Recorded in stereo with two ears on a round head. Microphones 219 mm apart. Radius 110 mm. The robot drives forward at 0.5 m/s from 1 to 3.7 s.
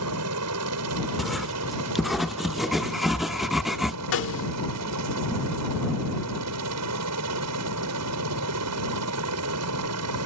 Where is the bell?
I don't hear a bell.